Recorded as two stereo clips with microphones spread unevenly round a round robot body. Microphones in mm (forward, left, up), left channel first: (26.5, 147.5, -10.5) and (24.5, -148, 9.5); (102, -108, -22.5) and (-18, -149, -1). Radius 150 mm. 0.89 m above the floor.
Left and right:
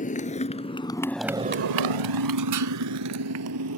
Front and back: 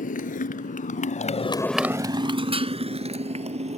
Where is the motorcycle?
25° left; by 3.8 s 135° right.